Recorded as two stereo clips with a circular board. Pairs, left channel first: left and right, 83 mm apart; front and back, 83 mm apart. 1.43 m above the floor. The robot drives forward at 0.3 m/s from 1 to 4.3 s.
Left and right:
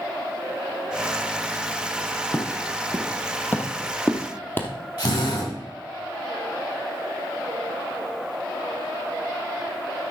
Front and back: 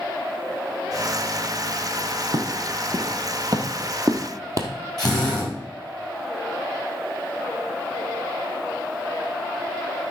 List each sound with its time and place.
2.3 s footsteps: 150° left, 3.5 m
5.0 s a drill: 85° left, 8.5 m